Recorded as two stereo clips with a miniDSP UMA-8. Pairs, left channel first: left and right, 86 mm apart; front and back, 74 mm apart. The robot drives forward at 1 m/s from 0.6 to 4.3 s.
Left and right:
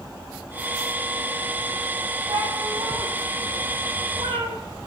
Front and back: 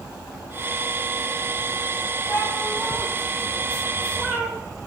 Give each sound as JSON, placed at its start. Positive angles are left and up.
{"t": 2.3, "sound": "a cat meowing", "azimuth_deg": -70, "distance_m": 3.5}